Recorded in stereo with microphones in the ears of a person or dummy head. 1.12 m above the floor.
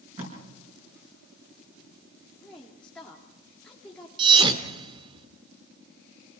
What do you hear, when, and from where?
0.2 s tape being pulled: 40° right (ahead or behind), 6.5 m
2.4 s a woman speaking: 5° left (ahead or behind), 2 m
4.2 s a thud: 25° right (ahead or behind), 1.6 m